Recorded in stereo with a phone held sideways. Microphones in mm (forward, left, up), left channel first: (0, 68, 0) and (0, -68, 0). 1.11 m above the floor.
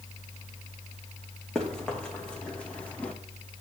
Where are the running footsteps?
5° left (ahead or behind), 3.5 m; by 3.1 s 10° left (ahead or behind), 2.5 m.